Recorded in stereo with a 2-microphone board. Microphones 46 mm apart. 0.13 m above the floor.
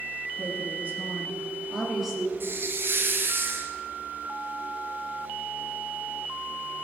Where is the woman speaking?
50° right (ahead or behind), 1.8 m; by 2.3 s 10° left (ahead or behind), 2.5 m.